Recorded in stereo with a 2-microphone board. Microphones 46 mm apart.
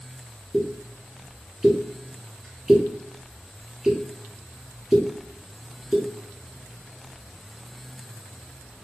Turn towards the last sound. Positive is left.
turn(degrees=-10)  # may be behind; listen again after turning